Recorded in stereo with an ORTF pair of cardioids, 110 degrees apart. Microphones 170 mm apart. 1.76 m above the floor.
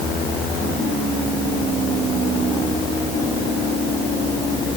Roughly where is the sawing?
I don't hear sawing.